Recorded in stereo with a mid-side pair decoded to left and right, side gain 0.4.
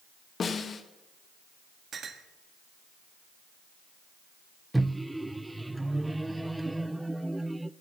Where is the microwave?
10° right, 0.5 m.